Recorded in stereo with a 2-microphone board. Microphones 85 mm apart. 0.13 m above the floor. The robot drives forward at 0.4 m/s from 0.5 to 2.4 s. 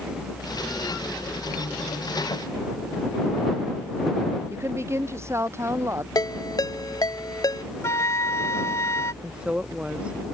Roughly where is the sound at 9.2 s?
Centre.